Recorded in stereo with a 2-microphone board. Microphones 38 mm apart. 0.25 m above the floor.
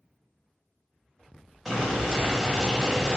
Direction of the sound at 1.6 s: Centre (ahead or behind).